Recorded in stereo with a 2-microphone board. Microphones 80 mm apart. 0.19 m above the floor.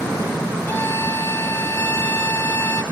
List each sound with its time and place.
0.7 s a violin: 25° left (ahead or behind), 0.9 m